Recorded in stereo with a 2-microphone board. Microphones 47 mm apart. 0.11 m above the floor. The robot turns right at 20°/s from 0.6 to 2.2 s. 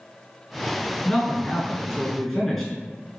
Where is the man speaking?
15° left (ahead or behind), 1.1 m; by 2.7 s 5° left (ahead or behind), 1.1 m.